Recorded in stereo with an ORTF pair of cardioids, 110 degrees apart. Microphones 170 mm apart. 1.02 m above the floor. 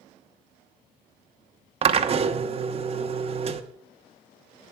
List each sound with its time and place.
1.8 s a drill: 35° right, 1.2 m